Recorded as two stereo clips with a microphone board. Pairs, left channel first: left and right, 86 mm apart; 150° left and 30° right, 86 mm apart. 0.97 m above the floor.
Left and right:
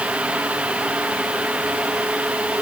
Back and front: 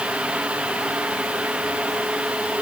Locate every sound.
Only background noise.